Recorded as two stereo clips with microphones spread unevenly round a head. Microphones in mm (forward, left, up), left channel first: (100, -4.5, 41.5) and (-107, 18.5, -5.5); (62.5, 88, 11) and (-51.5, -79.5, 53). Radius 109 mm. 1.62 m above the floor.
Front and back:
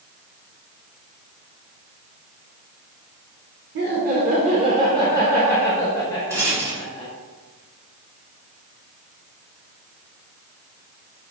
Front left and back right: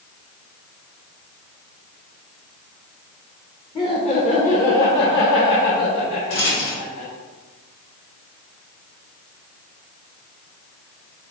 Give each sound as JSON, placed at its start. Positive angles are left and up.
{"t": 3.8, "sound": "laughter", "azimuth_deg": 130, "distance_m": 1.2}
{"t": 6.3, "sound": "a rattle", "azimuth_deg": 90, "distance_m": 1.8}